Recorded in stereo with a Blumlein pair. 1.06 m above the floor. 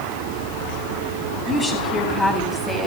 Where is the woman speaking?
15° left, 9 m; by 2.9 s 10° left, 7.5 m.